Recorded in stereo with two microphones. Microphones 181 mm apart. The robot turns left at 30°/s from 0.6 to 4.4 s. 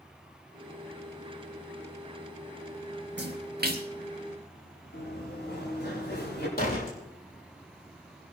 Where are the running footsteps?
65° left (ahead or behind), 7 m; by 6.5 s 60° left (ahead or behind), 9 m.